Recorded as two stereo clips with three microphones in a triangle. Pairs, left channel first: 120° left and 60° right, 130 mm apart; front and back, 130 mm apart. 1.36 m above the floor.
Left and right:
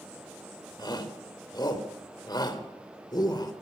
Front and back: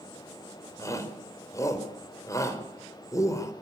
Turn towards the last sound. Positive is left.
turn(degrees=65)